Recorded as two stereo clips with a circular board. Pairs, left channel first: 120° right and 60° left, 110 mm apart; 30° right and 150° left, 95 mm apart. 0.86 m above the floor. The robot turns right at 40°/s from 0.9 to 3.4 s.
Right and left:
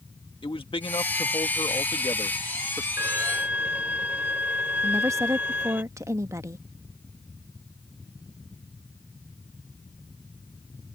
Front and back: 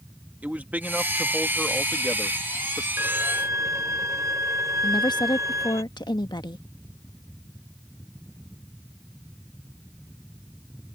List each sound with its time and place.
0.4 s a man speaking: 140° right; by 2.9 s 60° right
3.0 s a violin: 105° left; by 5.8 s 125° left
4.8 s a woman speaking: straight ahead